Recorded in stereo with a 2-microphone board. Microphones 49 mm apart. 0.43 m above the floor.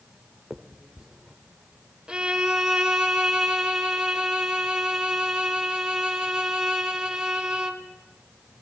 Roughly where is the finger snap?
Centre.